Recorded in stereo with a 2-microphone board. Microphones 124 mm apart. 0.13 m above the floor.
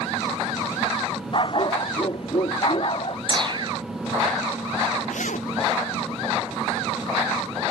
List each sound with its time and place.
1.3 s a dog barking: 40° left (ahead or behind); by 3.2 s 45° left (ahead or behind)
3.3 s a whoosh: 40° right (ahead or behind)
5.1 s a zipper: 80° left